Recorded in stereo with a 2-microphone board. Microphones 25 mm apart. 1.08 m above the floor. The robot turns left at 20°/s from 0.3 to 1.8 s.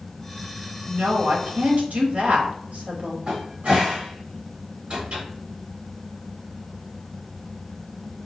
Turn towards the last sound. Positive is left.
turn(degrees=-65)  # may be behind; listen again after turning